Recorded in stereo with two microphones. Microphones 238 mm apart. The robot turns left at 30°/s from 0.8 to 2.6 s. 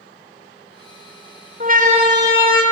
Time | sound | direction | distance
1.6 | a siren | 35° right (ahead or behind) | 4 m